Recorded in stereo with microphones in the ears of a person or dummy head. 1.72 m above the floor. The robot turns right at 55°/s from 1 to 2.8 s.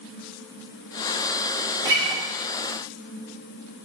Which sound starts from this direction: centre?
A guitar, at 1.9 s.